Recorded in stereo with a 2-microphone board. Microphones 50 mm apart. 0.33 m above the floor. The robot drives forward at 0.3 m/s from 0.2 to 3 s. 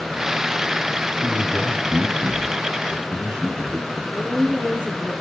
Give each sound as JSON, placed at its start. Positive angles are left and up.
{"t": 1.2, "sound": "a man speaking", "side_deg": -40, "distance_m": 2.5}
{"t": 4.1, "sound": "a woman speaking", "side_deg": 25, "distance_m": 3.0}